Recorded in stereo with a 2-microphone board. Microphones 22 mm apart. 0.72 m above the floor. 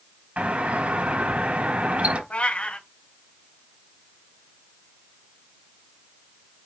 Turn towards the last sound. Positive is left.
turn(degrees=70)  # may be behind; listen again after turning